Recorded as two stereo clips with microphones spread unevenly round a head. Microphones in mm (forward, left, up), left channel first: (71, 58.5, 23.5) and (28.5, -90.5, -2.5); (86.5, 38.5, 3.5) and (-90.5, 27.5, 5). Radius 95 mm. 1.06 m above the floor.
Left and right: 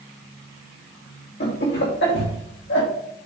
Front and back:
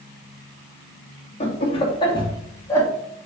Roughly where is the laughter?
Ahead left.